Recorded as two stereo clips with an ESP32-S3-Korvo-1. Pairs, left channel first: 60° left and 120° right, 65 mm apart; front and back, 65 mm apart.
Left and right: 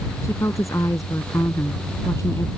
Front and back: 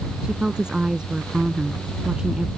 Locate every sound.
0.2 s a woman speaking: 100° left